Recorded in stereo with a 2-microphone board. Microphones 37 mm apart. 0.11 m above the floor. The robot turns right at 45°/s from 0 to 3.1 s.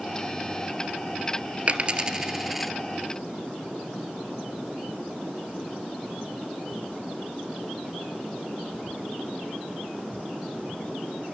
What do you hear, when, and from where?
1.7 s a dropped coin: 35° right (ahead or behind), 1.1 m; by 2.7 s centre (ahead or behind), 1.1 m